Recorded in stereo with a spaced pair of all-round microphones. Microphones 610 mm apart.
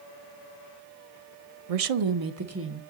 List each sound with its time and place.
1.7 s a woman speaking: 75° right (ahead or behind), 0.6 m; by 2.8 s 15° right (ahead or behind), 1.2 m